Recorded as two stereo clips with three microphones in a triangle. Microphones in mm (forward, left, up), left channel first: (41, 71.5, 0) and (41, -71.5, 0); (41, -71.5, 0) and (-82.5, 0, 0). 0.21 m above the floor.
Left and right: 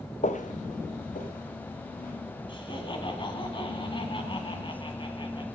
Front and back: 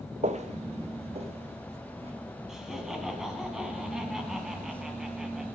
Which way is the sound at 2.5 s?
65° left.